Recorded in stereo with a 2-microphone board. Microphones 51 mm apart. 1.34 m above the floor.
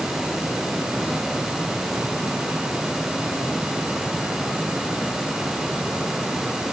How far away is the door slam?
I don't hear a door slam.